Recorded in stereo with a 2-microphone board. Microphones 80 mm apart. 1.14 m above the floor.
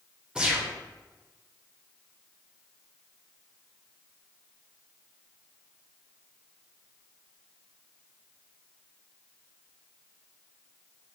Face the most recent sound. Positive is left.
turn(degrees=-10)  # may be behind; listen again after turning